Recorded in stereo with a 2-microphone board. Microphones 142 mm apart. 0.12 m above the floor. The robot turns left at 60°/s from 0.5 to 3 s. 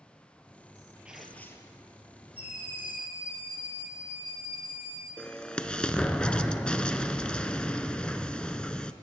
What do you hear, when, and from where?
1.1 s tearing paper: 170° right, 1.3 m; by 1.8 s 145° left, 1.3 m
2.4 s a scream: 135° left, 6.5 m; by 5.1 s 95° left, 6.5 m
5.2 s an explosion: 5° left (ahead or behind), 0.6 m